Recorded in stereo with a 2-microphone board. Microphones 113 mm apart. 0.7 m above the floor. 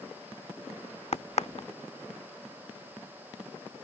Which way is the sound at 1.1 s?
70° left (ahead or behind).